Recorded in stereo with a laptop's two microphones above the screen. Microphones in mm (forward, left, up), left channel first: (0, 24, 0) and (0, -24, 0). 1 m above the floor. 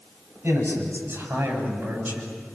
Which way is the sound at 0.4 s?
50° right (ahead or behind).